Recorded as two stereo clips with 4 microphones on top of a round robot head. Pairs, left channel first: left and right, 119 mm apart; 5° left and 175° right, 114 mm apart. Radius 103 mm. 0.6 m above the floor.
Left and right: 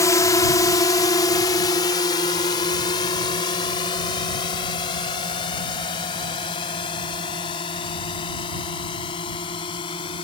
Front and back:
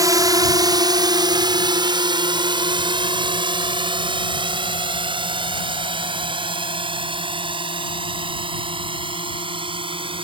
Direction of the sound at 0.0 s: 145° left.